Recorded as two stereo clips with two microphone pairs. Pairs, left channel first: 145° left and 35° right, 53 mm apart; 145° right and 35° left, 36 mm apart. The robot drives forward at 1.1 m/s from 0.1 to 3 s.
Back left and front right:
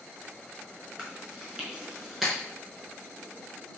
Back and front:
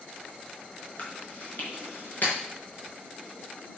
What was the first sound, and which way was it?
Chewing, 100° right.